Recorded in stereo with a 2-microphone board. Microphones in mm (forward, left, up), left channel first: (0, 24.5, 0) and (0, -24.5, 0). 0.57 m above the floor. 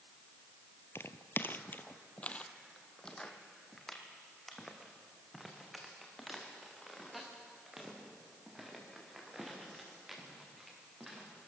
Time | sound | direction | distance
0.9 | footsteps | 55° left (ahead or behind) | 0.9 m